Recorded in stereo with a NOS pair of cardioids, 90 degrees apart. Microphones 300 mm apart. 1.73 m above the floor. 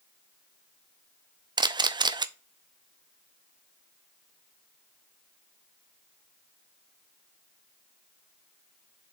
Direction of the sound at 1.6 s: 15° right.